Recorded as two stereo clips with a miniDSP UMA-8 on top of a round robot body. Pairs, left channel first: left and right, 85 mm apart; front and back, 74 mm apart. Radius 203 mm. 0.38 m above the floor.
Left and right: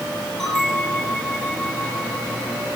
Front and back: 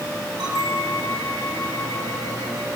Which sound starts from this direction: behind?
A bell, at 0.4 s.